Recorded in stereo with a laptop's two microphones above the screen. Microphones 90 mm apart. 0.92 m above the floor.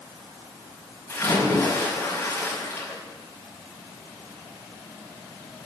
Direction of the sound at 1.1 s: 25° left (ahead or behind).